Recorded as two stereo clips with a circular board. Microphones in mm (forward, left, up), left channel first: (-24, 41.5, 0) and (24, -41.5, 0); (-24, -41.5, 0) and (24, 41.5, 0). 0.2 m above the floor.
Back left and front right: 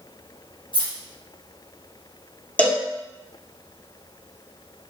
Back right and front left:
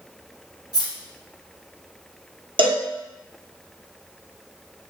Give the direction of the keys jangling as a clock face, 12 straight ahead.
9 o'clock.